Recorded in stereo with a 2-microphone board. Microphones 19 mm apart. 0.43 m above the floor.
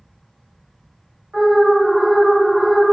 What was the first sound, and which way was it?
An alarm, 55° right (ahead or behind).